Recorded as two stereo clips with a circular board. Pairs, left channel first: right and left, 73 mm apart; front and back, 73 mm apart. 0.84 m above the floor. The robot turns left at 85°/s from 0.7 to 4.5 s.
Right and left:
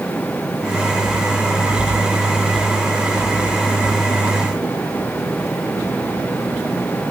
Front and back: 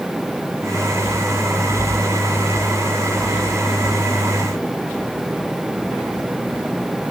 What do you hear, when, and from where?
Only background noise.